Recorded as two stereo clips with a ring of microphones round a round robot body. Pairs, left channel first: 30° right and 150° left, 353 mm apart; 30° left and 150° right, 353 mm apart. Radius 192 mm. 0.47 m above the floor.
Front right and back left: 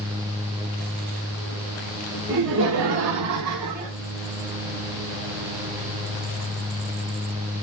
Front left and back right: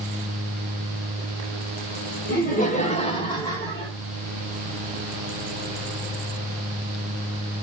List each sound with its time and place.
2.3 s laughter: 95° left, 2.5 m; by 3.9 s 115° left, 2.5 m